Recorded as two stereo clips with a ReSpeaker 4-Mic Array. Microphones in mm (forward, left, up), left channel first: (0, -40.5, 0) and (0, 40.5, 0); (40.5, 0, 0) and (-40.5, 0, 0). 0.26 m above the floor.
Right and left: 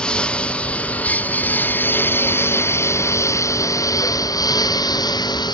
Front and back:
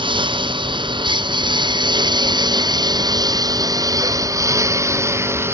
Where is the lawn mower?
170° right; by 5.5 s 120° right.